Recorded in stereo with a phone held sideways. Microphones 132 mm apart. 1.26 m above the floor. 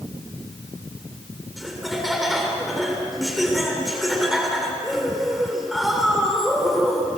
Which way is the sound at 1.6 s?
Centre (ahead or behind).